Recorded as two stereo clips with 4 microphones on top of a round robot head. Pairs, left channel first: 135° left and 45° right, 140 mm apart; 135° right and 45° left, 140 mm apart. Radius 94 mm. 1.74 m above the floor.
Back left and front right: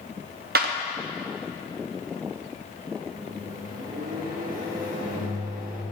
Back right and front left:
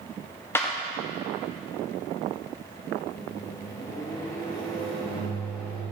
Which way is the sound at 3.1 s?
70° right.